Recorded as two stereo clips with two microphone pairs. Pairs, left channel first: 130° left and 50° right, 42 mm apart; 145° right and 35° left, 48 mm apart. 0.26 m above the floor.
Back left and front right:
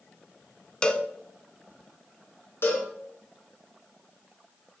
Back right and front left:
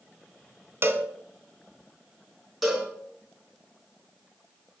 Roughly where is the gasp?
No gasp in this recording.